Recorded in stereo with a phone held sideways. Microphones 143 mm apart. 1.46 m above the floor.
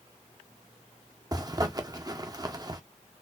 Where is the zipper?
30° right (ahead or behind), 0.5 m.